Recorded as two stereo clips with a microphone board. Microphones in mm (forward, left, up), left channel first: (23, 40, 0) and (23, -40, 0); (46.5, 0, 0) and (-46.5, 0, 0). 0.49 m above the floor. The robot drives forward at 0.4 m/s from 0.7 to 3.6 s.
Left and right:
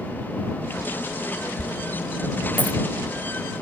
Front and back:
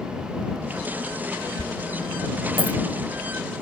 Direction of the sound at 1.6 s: 160° left.